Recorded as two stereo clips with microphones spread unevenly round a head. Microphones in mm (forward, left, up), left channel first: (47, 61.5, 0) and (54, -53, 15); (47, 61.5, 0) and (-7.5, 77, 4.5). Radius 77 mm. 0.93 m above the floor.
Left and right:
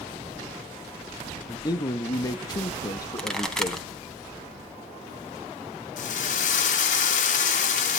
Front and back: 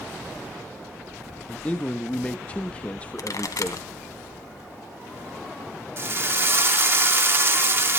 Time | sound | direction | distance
1.5 | a man speaking | 45° left | 1.2 m
3.2 | a pop | 5° left | 3 m
6.0 | a drill | 115° left | 2 m